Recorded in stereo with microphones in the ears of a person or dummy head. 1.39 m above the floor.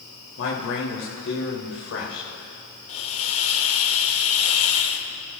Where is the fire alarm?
No fire alarm in this recording.